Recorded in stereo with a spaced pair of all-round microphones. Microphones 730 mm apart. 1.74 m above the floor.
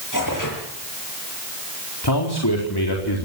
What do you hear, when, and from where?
0.1 s tearing paper: 25° left (ahead or behind), 7.5 m
2.0 s a man speaking: 30° left (ahead or behind), 4.5 m